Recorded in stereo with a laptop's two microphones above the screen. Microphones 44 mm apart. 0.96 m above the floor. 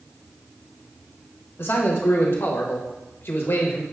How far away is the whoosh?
No whoosh in this recording.